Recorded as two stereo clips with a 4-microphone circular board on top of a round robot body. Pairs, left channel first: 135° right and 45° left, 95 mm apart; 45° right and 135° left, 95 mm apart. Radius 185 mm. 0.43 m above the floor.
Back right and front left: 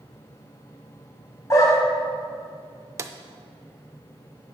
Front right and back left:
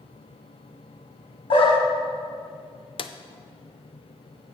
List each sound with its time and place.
1.5 s a dog barking: 75° right, 1.2 m
3.0 s a drawer: 15° right, 0.5 m